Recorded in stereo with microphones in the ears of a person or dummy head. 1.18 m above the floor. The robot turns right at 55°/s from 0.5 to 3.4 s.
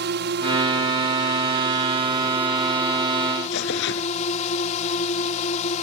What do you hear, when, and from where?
0.0 s a drone: 115° right; by 5.8 s 45° left
3.5 s tearing paper: 65° left (ahead or behind)